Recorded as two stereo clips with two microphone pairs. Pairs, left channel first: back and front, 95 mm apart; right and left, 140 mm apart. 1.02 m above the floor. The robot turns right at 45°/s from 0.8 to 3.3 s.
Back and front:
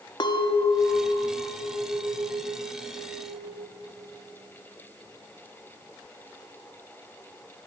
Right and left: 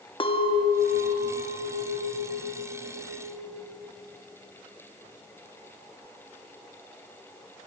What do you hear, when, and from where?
0.2 s a clink: 145° right, 0.8 m; by 3.7 s 30° right, 0.8 m